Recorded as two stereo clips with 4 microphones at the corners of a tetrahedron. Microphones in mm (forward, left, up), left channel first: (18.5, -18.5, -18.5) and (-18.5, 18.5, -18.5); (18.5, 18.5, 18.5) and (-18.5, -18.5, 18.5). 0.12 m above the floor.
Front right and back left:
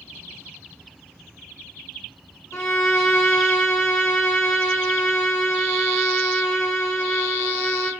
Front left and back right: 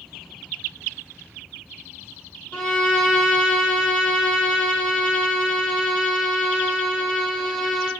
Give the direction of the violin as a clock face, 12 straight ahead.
1 o'clock.